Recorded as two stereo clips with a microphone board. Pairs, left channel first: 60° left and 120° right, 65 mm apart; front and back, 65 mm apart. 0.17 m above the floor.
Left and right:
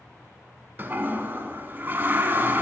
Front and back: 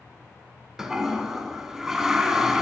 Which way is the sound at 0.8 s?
105° right.